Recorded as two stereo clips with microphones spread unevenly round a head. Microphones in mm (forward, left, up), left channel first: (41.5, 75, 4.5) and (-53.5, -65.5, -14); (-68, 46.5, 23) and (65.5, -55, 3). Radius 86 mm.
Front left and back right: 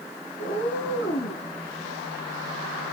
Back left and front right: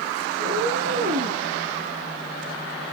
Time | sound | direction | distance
0.4 | a cat meowing | 10° left | 4.5 m